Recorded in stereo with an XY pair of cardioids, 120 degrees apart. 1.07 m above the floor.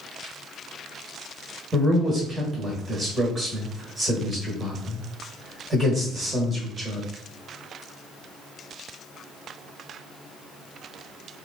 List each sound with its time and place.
1.7 s a man speaking: 30° right, 1.3 m